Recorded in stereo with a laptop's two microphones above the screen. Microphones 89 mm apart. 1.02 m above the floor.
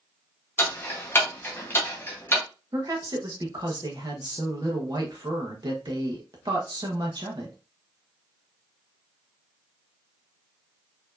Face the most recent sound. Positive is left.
turn(degrees=-55)  # may be behind; listen again after turning